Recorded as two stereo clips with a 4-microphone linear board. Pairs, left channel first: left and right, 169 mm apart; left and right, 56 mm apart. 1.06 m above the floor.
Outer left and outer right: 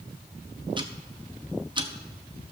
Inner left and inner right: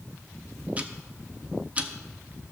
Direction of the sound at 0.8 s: 25° right (ahead or behind).